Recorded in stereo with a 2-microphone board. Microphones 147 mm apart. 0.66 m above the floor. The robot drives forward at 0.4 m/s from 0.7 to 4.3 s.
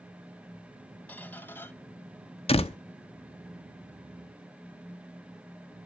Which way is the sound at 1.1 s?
10° left (ahead or behind).